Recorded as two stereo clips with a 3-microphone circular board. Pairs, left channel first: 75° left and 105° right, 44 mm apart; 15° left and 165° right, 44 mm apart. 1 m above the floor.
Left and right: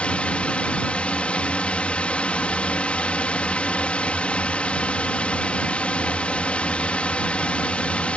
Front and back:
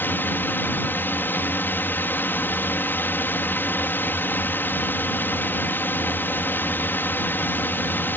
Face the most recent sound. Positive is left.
turn(degrees=20)